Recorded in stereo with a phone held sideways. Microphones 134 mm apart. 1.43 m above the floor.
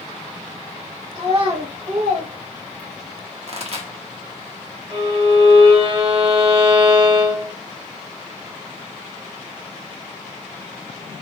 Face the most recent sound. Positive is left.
turn(degrees=-40)  # may be behind; listen again after turning